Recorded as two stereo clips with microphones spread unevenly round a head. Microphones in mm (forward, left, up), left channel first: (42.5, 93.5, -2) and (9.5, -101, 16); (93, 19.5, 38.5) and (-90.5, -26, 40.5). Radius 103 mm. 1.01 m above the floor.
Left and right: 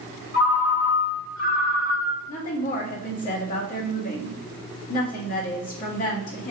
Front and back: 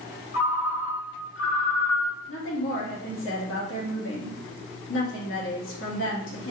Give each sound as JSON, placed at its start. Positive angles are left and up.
{"t": 0.3, "sound": "a ringtone", "azimuth_deg": 45, "distance_m": 1.5}
{"t": 2.3, "sound": "a woman speaking", "azimuth_deg": 35, "distance_m": 1.8}